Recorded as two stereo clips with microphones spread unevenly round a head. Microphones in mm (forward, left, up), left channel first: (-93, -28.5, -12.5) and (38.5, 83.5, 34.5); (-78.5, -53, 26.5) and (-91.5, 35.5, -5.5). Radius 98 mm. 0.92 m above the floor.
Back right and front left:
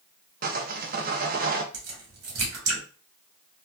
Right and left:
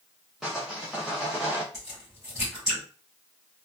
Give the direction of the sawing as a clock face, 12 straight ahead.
12 o'clock.